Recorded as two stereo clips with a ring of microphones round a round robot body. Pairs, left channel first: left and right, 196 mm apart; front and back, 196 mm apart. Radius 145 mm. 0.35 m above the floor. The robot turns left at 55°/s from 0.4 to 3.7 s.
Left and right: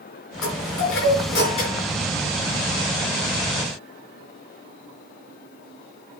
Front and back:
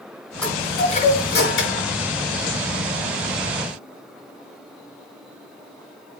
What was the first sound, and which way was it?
A chime, 85° left.